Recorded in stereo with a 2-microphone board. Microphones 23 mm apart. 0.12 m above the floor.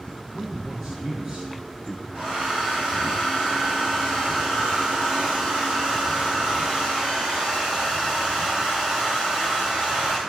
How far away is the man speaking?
About 3.5 m.